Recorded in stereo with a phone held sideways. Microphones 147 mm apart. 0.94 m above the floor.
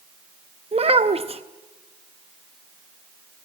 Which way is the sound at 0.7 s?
45° right (ahead or behind).